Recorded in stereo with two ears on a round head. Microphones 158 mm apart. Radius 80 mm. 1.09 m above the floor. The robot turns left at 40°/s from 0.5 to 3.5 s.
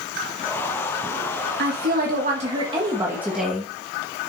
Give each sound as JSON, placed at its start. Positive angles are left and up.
{"t": 1.6, "sound": "a woman speaking", "azimuth_deg": -105, "distance_m": 1.7}